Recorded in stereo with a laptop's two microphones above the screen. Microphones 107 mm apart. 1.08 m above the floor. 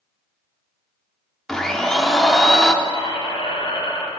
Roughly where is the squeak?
Left.